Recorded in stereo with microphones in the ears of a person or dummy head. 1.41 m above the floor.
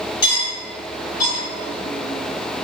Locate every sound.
0.2 s cutlery clinking: 35° left (ahead or behind), 1.6 m